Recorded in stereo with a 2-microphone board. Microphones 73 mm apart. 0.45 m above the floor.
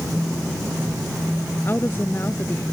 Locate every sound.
1.6 s a woman speaking: 35° left (ahead or behind)